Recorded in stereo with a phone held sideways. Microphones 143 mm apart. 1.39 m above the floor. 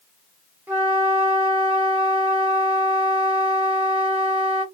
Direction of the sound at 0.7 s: 10° right (ahead or behind).